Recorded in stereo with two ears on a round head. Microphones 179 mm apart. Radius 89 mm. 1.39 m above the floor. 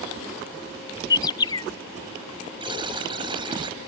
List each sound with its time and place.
1.1 s a bird: 20° left (ahead or behind)
2.6 s a buzzer: 25° right (ahead or behind)